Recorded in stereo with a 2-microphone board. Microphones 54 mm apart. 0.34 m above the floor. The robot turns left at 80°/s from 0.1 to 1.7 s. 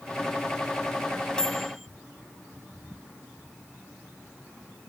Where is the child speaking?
No child speaking in this recording.